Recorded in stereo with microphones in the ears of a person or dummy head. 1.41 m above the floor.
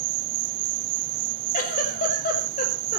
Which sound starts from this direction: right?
An insect, at 0.0 s.